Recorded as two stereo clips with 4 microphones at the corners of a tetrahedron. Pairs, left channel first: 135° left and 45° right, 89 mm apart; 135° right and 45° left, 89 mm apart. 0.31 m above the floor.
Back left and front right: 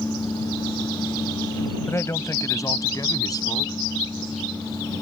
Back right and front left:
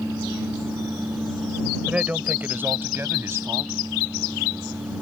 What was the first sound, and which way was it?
A man speaking, 110° left.